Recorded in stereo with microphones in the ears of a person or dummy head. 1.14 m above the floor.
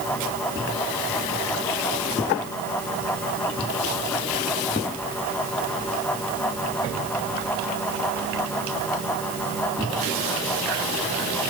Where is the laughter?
I don't hear laughter.